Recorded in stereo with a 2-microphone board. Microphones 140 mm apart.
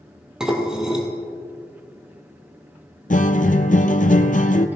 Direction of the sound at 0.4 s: 5° right (ahead or behind).